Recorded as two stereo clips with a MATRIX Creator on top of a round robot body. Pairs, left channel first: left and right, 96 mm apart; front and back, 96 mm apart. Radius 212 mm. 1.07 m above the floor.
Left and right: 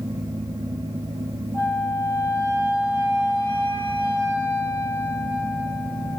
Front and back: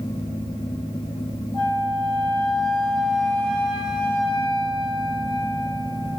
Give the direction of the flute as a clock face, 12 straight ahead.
7 o'clock.